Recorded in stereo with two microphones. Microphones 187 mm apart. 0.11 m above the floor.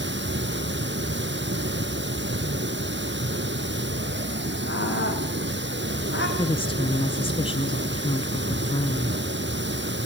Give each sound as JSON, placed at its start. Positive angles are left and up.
{"t": 0.0, "sound": "running water", "side_deg": -65, "distance_m": 1.1}
{"t": 4.7, "sound": "a scream", "side_deg": 75, "distance_m": 6.0}
{"t": 6.4, "sound": "a woman speaking", "side_deg": 25, "distance_m": 1.2}